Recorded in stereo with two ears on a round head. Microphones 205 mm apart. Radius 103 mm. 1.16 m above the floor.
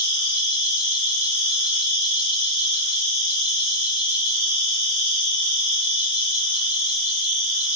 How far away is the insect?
About 1.4 m.